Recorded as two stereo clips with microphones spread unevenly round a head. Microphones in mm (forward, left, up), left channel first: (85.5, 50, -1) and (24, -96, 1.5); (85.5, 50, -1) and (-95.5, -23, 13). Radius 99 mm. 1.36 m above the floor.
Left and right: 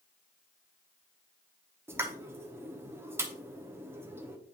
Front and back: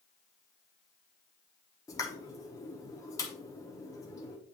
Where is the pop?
50° right, 1.0 m.